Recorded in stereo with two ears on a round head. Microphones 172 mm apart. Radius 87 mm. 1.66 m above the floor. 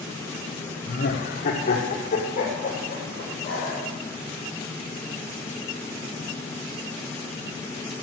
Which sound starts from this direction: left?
Laughter, at 0.9 s.